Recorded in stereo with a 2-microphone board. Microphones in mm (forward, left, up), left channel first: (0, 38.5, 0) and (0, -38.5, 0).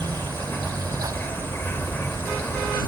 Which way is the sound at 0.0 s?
30° left (ahead or behind).